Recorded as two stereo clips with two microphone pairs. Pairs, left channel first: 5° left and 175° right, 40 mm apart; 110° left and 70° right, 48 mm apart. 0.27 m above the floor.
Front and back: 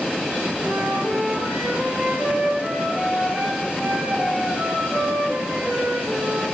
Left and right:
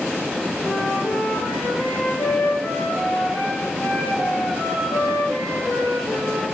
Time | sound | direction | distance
0.6 | a flute | 130° left | 6.5 m